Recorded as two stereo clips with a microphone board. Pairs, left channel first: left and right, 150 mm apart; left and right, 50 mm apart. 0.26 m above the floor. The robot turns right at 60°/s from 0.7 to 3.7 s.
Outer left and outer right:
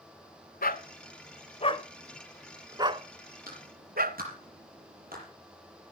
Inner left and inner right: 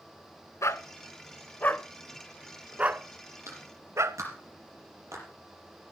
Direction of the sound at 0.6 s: 80° left.